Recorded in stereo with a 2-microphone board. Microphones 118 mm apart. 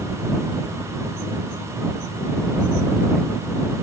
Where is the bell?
No bell in this recording.